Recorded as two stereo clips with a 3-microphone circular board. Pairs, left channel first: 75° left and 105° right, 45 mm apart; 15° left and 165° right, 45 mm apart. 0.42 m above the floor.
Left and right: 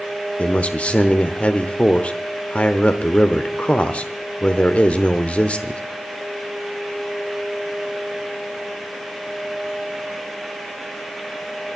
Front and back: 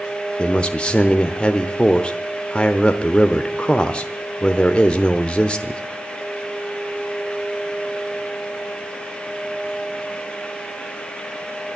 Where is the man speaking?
55° left, 0.9 m.